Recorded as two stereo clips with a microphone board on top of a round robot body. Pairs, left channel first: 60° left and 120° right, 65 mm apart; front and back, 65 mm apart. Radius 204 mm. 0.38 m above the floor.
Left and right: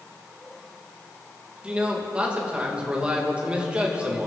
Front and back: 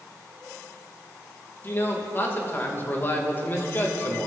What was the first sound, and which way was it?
A man speaking, 50° right.